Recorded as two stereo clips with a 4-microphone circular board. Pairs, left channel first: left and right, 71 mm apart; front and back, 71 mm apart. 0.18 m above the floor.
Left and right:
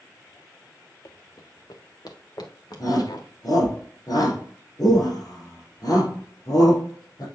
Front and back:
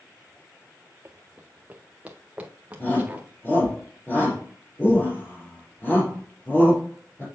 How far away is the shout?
About 4.5 m.